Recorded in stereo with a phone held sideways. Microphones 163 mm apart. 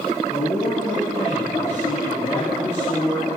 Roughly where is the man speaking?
Left.